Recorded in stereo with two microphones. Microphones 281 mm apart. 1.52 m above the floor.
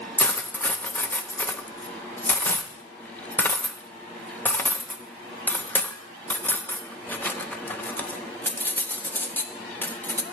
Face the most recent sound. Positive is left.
turn(degrees=5)  # may be behind; listen again after turning